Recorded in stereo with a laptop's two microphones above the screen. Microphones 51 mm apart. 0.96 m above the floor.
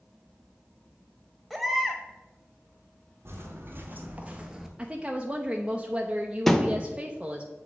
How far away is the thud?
About 0.6 m.